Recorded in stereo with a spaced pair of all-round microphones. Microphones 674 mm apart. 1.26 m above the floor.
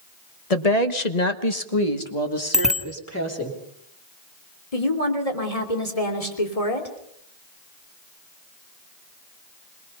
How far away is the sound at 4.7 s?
About 3 m.